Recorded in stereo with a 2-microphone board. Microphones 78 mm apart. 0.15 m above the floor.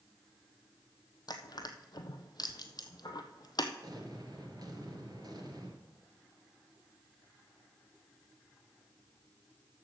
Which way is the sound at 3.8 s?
60° right (ahead or behind).